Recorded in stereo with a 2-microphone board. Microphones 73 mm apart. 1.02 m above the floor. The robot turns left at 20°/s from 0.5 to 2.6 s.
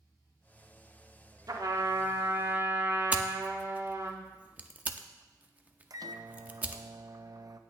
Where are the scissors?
20° right (ahead or behind), 0.6 m.